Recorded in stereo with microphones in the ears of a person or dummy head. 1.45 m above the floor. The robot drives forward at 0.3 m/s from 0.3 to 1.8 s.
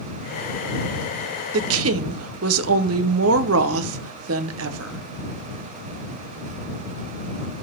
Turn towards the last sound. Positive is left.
turn(degrees=-75)  # may be behind; listen again after turning